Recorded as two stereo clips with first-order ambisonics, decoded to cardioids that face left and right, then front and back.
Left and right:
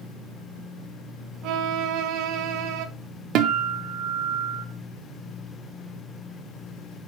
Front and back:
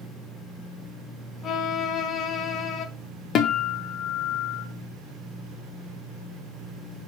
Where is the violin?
60° right, 0.8 m.